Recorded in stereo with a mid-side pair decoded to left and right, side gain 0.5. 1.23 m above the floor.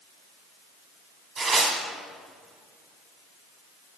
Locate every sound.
1.4 s tearing paper: 25° right, 3 m